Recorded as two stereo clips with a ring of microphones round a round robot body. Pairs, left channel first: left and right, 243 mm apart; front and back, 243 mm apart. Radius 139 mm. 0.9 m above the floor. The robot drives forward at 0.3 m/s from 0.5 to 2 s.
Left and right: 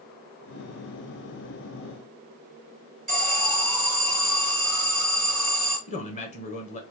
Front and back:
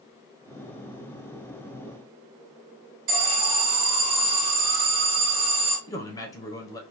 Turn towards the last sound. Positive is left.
turn(degrees=65)